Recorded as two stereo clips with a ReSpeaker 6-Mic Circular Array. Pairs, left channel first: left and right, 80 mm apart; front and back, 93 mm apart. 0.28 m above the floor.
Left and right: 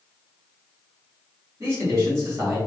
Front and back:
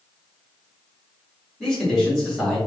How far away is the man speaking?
About 1.7 m.